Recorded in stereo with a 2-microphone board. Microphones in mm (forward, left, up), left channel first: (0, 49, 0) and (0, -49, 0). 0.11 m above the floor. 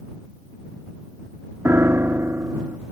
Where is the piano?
25° right (ahead or behind).